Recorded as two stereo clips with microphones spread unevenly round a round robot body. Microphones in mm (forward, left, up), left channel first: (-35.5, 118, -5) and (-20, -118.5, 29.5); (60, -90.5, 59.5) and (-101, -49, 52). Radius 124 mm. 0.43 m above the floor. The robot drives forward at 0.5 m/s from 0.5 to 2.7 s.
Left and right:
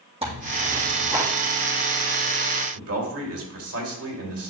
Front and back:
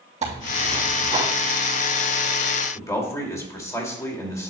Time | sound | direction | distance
0.2 | tearing paper | 150° right | 3.5 m
2.8 | a man speaking | 85° right | 2 m